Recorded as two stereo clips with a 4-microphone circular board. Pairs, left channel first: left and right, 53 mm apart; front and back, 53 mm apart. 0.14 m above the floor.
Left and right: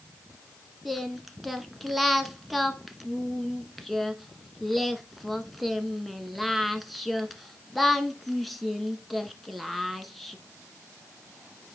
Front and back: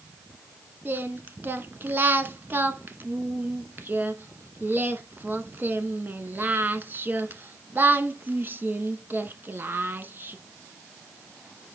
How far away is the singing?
About 0.8 m.